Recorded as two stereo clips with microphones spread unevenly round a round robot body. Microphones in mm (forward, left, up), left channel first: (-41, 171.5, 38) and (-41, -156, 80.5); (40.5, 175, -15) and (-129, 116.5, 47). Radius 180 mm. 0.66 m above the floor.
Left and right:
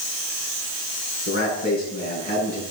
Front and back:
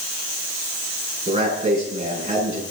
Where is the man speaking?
150° left, 9 m.